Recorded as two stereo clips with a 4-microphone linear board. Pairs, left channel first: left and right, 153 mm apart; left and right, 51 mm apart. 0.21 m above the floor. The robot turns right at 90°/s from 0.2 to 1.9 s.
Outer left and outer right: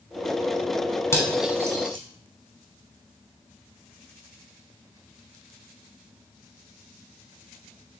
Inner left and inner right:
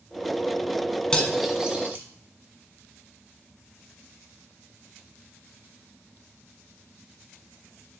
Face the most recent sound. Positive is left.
turn(degrees=-35)  # may be behind; listen again after turning